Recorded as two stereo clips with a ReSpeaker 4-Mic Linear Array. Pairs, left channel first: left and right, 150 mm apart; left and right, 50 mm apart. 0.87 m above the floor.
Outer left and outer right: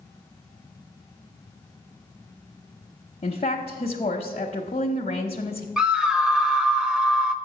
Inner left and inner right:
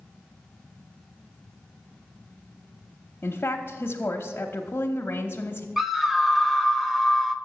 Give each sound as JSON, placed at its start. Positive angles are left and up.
{"t": 3.2, "sound": "a woman speaking", "side_deg": 45, "distance_m": 0.8}
{"t": 5.8, "sound": "a scream", "side_deg": -5, "distance_m": 0.7}